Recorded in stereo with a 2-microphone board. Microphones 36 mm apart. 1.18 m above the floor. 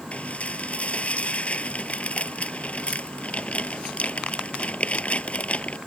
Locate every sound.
0.1 s dishes clattering: 40° left (ahead or behind)